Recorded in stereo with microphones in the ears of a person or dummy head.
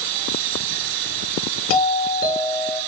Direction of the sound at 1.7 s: 55° left (ahead or behind).